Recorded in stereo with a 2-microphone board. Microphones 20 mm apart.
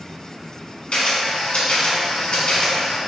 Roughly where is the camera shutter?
Left.